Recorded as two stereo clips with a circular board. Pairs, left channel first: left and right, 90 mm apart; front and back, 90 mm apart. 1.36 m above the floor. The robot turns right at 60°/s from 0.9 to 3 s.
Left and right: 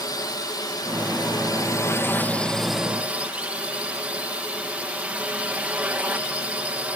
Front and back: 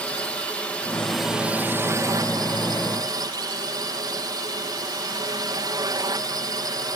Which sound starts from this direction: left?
A drone, at 0.0 s.